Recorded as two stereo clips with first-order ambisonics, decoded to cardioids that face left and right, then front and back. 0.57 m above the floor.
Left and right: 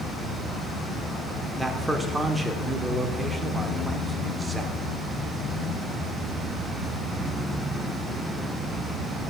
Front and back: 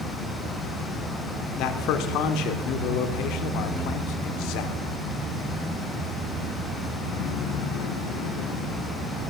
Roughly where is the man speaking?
Ahead.